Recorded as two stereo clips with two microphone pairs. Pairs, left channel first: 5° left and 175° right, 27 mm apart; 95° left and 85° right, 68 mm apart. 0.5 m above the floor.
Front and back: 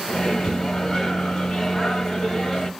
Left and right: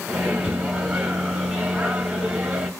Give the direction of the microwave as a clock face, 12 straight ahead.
1 o'clock.